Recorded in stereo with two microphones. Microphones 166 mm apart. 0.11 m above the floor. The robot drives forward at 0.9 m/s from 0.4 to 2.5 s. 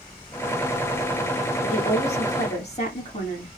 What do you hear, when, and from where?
1.6 s a woman speaking: 45° left (ahead or behind), 6.5 m; by 3.5 s 40° left (ahead or behind), 7 m